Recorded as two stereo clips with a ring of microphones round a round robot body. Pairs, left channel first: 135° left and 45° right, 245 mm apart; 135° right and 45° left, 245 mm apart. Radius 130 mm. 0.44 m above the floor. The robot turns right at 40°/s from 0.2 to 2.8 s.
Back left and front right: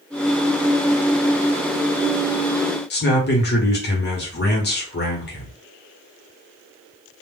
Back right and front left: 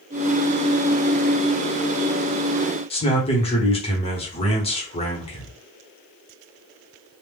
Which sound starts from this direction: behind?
A man speaking, at 2.9 s.